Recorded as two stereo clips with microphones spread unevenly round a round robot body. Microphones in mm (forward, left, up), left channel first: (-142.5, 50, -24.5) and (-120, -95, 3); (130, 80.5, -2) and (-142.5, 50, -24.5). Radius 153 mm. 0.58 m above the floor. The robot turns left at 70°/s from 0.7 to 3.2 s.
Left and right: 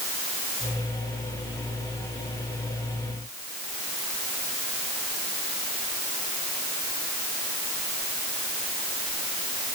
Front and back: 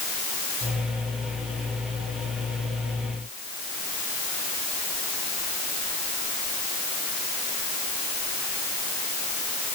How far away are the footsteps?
I don't hear footsteps.